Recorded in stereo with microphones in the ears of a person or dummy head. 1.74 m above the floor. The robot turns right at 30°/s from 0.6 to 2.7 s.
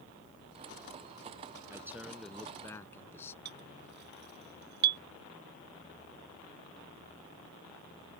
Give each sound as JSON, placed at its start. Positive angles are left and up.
{"t": 1.7, "sound": "a man speaking", "azimuth_deg": -20}
{"t": 3.5, "sound": "a clink", "side_deg": -60}